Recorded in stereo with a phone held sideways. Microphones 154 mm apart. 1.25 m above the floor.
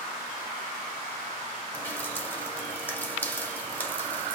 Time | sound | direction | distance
1.7 | dripping | 15° left (ahead or behind) | 1.9 m